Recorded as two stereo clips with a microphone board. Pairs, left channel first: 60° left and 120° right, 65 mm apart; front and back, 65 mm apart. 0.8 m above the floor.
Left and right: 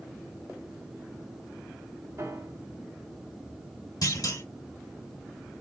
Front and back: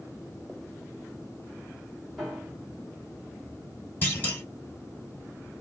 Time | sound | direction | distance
2.2 | a piano | 95° right | 1.7 m
4.0 | a clunk | 60° left | 2.5 m